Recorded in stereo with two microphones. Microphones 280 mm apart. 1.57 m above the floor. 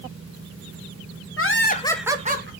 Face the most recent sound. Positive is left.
turn(degrees=-40)  # may be behind; listen again after turning